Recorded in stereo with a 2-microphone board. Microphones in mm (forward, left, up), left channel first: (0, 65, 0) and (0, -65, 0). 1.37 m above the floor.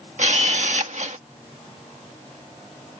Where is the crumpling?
No crumpling in this recording.